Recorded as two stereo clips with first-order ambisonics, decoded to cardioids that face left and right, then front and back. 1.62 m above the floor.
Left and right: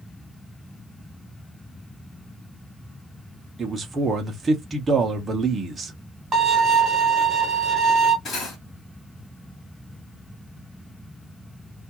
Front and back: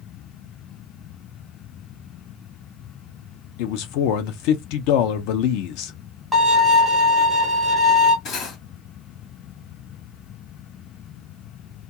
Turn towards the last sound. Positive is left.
turn(degrees=35)